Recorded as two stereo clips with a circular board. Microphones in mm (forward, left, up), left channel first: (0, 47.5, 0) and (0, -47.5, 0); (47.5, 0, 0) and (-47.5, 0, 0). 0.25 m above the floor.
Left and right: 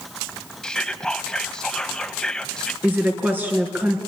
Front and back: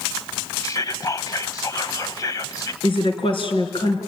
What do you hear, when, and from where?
0.6 s whispering: 10° left, 1.2 m
2.8 s a woman speaking: 20° right, 3.5 m